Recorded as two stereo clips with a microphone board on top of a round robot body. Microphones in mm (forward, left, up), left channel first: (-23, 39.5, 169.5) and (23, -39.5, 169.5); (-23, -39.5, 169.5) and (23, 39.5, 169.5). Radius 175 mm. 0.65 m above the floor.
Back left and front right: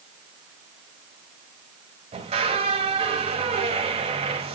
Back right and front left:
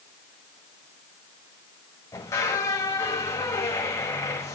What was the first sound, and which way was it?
A squeak, 60° right.